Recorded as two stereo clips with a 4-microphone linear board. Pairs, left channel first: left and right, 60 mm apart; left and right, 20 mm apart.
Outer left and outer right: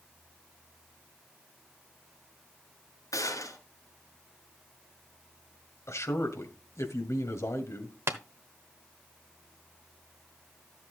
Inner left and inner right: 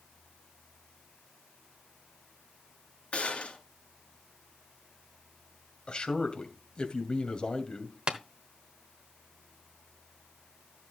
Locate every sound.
3.1 s a gunshot: 80° left, 4 m
5.9 s a man speaking: 55° left (ahead or behind), 2 m
8.1 s tapping: 50° right (ahead or behind), 1.1 m